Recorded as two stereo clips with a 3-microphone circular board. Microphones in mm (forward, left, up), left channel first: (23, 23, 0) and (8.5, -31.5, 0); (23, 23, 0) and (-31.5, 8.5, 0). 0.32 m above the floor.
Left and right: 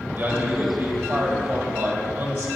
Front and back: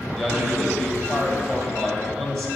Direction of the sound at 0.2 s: 50° right.